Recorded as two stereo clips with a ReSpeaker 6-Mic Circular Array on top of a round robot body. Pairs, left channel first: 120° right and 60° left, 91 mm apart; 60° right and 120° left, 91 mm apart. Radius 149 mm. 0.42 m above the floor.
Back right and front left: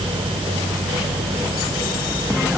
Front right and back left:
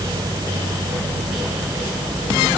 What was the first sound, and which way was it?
Only background noise.